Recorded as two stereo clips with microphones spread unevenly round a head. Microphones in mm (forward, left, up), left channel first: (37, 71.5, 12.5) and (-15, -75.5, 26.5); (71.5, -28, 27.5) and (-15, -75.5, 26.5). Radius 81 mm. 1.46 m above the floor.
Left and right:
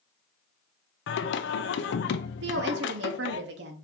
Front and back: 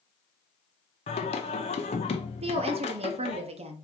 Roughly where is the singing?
Left.